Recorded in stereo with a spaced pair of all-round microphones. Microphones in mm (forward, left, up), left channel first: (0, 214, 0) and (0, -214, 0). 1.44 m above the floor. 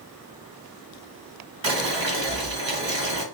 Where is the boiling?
85° right, 1.4 m.